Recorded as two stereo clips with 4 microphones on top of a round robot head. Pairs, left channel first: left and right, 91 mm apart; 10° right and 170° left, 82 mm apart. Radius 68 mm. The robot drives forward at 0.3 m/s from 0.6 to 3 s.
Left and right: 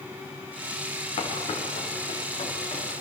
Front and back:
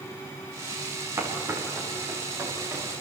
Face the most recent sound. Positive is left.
turn(degrees=115)